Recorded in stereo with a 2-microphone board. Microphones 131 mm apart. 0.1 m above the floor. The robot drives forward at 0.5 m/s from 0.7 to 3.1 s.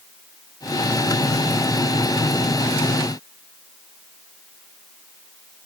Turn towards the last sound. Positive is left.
No sound to turn to.